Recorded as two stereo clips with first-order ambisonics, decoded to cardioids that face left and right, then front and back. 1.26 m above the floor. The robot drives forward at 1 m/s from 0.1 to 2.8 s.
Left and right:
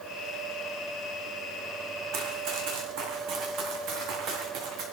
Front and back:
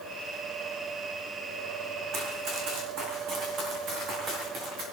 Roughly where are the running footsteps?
Behind right.